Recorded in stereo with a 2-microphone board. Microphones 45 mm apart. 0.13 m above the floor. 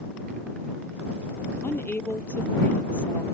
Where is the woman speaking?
50° left (ahead or behind); by 3.2 s 30° left (ahead or behind).